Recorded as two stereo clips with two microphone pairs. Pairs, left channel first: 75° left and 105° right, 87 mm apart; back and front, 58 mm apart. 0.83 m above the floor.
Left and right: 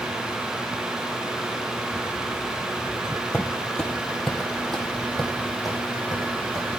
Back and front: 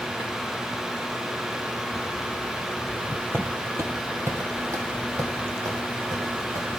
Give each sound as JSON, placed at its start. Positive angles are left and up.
{"t": 3.3, "sound": "footsteps", "azimuth_deg": 0, "distance_m": 1.1}